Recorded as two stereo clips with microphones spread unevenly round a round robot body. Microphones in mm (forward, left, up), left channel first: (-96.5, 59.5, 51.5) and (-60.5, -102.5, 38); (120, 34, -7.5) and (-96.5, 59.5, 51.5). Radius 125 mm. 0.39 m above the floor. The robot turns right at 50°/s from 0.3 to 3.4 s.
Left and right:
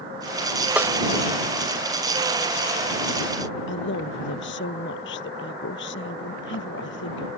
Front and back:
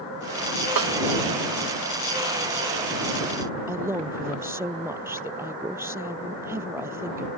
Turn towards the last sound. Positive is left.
turn(degrees=95)